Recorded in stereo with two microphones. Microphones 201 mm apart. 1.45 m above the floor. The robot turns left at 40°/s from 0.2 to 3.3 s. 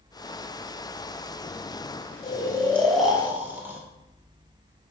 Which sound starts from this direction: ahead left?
Snoring, at 2.2 s.